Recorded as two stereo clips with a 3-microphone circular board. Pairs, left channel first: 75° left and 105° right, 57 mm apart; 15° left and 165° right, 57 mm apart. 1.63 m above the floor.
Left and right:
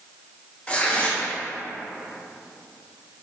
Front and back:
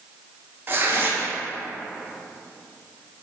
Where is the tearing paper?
140° left, 0.7 m.